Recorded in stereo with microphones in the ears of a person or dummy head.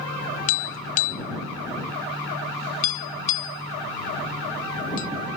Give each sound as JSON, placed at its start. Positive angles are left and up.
{"t": 0.5, "sound": "tapping", "side_deg": 45}